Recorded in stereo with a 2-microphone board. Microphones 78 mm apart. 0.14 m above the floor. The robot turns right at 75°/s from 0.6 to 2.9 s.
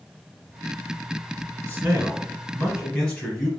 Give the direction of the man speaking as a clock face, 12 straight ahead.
2 o'clock.